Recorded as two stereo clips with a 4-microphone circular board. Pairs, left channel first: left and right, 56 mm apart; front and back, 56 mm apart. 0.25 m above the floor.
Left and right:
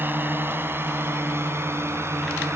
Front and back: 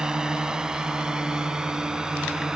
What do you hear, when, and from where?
0.0 s a drone: 110° right; by 2.6 s 105° right